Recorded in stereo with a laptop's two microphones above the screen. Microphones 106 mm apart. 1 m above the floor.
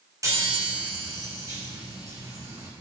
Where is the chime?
30° right (ahead or behind), 7.5 m.